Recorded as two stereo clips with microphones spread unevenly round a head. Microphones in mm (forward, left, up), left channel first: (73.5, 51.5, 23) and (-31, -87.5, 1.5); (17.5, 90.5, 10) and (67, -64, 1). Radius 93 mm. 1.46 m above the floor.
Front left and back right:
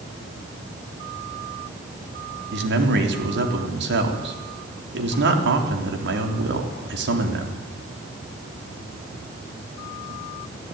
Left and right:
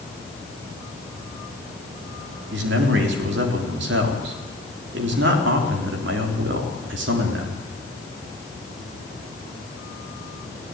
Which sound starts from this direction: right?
A man speaking, at 2.5 s.